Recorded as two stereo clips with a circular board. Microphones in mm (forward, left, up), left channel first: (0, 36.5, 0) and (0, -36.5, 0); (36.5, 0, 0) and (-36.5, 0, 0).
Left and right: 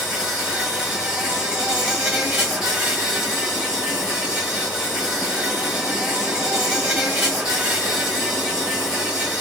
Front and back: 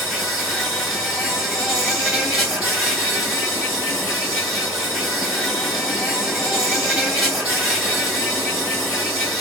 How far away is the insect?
About 2.5 m.